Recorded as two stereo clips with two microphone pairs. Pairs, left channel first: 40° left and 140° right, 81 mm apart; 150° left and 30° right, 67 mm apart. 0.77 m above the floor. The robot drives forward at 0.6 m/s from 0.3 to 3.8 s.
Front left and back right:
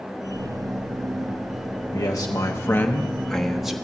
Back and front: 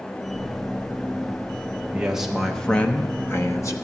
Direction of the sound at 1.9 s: 45° left.